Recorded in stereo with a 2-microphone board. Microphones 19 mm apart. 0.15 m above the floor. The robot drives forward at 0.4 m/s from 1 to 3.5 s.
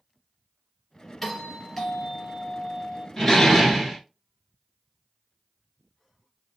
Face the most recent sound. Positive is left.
turn(degrees=5)  # may be behind; listen again after turning